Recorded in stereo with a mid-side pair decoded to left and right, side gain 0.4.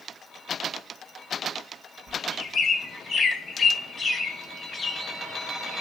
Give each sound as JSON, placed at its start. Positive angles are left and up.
{"t": 2.1, "sound": "a bird", "azimuth_deg": 50, "distance_m": 0.8}